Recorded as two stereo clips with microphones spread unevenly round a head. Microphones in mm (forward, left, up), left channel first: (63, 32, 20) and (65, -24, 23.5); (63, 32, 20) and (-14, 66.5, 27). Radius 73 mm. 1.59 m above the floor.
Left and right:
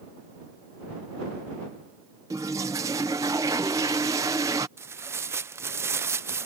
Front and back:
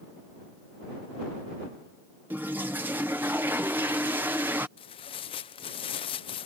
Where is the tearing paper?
50° right.